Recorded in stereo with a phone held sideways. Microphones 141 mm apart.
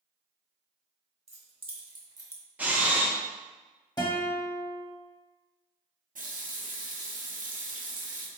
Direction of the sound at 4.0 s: 30° left (ahead or behind).